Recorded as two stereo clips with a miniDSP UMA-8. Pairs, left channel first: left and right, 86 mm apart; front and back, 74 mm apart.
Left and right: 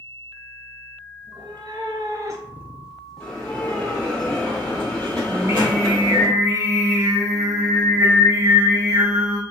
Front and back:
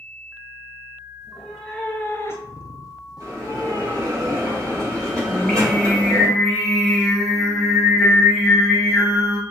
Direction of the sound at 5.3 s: 80° right.